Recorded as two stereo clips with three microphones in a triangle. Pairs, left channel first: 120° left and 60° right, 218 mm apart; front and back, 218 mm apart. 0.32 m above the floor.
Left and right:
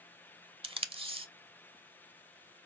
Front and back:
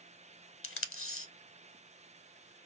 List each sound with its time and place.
0.6 s tape being pulled: 5° left, 0.5 m